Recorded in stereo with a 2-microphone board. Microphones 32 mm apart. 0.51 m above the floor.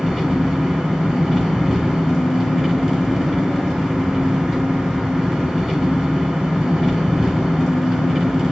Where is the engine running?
Centre (ahead or behind), 2.5 m.